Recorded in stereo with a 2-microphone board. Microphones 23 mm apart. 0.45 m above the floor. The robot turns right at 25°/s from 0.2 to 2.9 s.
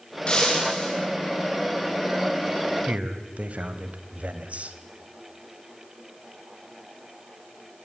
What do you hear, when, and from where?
0.3 s breaking glass: 45° left (ahead or behind), 6.5 m; by 1.0 s 25° left (ahead or behind), 6.5 m
2.9 s a man speaking: 65° right (ahead or behind), 2 m